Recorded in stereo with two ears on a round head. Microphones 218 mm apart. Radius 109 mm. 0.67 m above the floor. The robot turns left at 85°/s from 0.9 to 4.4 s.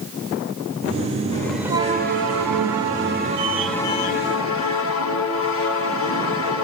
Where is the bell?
20° left, 1.7 m; by 6.6 s 120° left, 1.7 m.